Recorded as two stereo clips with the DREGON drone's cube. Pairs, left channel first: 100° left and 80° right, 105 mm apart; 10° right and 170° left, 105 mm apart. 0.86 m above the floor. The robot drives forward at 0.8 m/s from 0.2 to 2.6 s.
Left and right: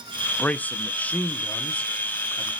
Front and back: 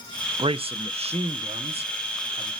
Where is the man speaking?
170° left, 0.5 m; by 2.5 s straight behind, 2 m.